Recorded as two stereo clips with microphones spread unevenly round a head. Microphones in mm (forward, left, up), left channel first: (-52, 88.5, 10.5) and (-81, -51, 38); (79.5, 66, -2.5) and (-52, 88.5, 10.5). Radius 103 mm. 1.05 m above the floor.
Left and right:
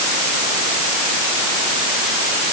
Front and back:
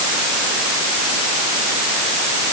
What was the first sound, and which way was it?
Only background noise.